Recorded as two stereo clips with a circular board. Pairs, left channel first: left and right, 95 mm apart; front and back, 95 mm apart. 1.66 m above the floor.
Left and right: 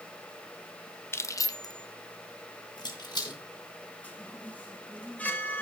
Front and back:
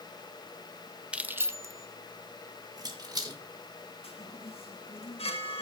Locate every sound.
1.1 s keys jangling: 115° left, 0.6 m; by 3.4 s 135° left, 2 m
4.0 s a chime: 15° left, 1.8 m